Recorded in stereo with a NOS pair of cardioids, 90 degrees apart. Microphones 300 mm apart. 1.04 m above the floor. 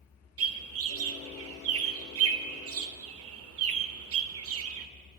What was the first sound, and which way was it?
A bird, 50° right.